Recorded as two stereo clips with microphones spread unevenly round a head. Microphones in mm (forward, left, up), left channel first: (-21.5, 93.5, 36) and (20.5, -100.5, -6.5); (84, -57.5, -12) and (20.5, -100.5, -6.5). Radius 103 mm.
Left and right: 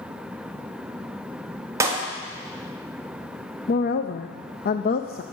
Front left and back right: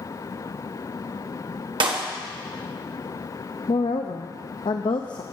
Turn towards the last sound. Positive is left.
turn(degrees=55)